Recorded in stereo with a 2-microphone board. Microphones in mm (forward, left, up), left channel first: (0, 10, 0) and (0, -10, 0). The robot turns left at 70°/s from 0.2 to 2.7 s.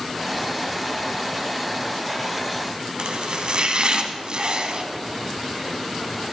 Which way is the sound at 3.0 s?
55° right (ahead or behind).